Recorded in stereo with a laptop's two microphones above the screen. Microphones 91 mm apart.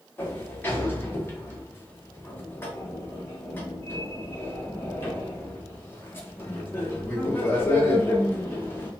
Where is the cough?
I don't hear a cough.